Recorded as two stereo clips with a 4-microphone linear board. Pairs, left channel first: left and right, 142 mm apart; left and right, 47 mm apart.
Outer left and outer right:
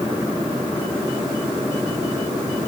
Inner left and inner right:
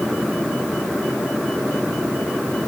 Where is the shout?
I don't hear a shout.